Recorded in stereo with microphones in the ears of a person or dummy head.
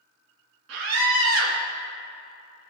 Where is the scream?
80° right, 2 m.